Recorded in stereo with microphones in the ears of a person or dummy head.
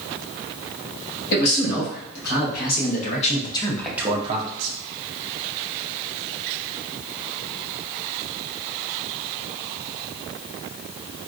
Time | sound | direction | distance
1.3 | a man speaking | 65° left (ahead or behind) | 2.0 m